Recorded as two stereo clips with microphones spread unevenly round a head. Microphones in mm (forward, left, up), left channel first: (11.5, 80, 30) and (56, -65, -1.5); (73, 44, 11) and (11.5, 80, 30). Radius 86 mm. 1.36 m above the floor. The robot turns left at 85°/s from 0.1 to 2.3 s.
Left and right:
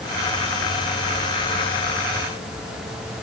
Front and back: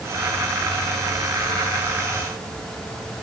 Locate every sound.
Only background noise.